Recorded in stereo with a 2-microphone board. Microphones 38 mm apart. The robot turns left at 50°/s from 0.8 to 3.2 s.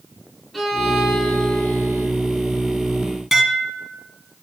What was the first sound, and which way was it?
A violin, 175° left.